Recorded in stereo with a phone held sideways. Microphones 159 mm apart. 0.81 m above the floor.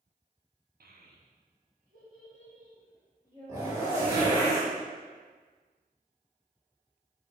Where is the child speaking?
70° right (ahead or behind), 0.5 m; by 4.5 s 45° right (ahead or behind), 2.5 m.